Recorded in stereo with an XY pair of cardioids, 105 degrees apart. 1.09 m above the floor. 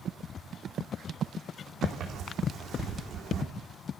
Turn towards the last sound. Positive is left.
turn(degrees=-70)